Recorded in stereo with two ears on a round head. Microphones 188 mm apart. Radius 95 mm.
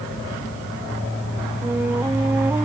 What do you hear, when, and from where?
1.6 s a flute: 10° right (ahead or behind)